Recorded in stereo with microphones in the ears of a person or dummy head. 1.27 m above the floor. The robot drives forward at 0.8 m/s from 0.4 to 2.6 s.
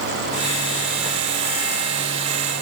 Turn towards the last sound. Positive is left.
No sound to turn to.